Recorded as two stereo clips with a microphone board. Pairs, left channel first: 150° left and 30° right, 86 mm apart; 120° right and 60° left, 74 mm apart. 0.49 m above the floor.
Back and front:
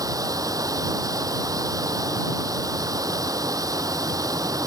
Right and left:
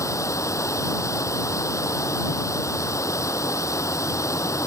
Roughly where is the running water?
Right.